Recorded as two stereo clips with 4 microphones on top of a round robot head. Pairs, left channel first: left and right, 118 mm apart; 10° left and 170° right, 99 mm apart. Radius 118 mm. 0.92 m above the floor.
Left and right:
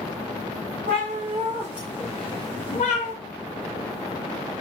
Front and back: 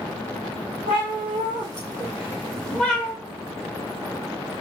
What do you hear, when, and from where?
0.9 s a cat meowing: 135° right, 0.8 m; by 3.1 s 85° left, 0.8 m